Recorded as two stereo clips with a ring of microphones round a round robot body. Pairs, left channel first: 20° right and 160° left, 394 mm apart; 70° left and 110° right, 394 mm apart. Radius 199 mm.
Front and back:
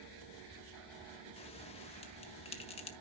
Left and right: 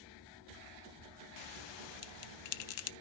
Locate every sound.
1.4 s a bell: 50° left, 0.5 m